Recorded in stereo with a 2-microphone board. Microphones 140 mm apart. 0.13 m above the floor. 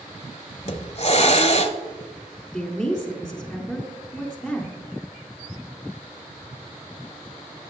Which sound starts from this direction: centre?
A woman speaking, at 2.5 s.